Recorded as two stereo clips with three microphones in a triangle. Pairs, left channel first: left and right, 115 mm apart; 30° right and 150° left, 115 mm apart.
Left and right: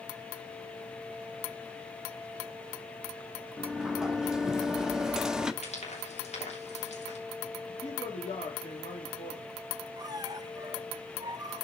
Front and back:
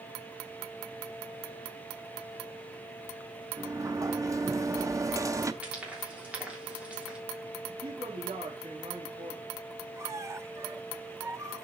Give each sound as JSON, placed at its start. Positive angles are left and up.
{"t": 3.6, "sound": "a sliding door", "azimuth_deg": -170, "distance_m": 0.7}
{"t": 5.6, "sound": "frying", "azimuth_deg": 70, "distance_m": 3.0}
{"t": 7.7, "sound": "a man speaking", "azimuth_deg": 120, "distance_m": 2.5}
{"t": 10.0, "sound": "a squeak", "azimuth_deg": -145, "distance_m": 0.7}